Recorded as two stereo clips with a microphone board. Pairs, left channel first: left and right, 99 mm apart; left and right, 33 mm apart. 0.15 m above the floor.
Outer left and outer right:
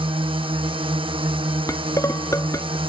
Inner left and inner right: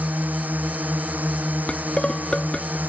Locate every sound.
0.0 s a drone: 65° right (ahead or behind)
1.7 s dishes clattering: 35° left (ahead or behind)